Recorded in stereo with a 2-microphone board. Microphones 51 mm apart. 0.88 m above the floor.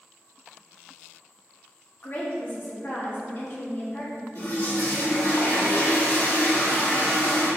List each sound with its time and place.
2.0 s a woman speaking: 45° left (ahead or behind), 1.0 m
4.3 s a toilet flushing: 50° left (ahead or behind), 1.9 m